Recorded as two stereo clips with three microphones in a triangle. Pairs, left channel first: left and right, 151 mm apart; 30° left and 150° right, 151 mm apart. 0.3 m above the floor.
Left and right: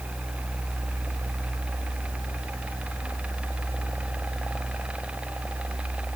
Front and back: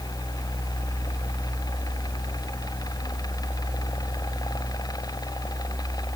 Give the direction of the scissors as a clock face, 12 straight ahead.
No scissors in this recording.